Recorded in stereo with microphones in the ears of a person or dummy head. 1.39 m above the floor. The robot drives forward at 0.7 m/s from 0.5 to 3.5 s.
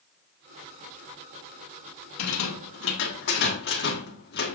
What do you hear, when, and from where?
2.2 s a rattle: 90° left, 1.2 m; by 4.5 s 55° left (ahead or behind), 1.5 m